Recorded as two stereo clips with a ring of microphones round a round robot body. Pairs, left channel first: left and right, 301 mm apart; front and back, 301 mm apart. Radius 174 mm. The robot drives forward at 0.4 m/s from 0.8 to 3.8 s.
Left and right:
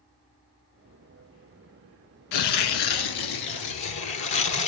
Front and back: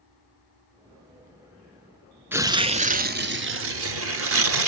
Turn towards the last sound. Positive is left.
turn(degrees=135)